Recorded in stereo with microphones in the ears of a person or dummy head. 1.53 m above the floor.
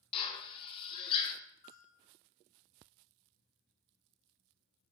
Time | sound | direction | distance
0.1 | a drill | 30° left (ahead or behind) | 0.5 m
1.6 | a bell | 35° left (ahead or behind) | 1.3 m